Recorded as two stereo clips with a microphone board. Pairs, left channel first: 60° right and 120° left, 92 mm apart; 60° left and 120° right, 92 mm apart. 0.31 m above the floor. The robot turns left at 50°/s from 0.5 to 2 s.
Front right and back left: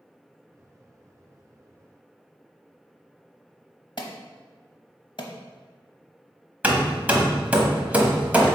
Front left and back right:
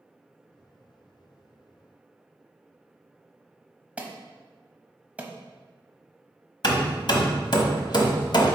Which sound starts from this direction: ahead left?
Hammering, at 6.6 s.